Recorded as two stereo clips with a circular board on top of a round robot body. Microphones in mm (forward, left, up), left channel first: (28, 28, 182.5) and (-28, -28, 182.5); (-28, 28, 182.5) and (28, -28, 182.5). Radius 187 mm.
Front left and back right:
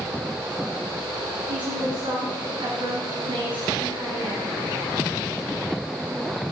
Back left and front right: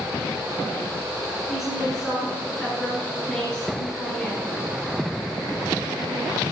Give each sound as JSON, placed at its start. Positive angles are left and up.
{"t": 1.5, "sound": "a woman speaking", "azimuth_deg": -135, "distance_m": 7.0}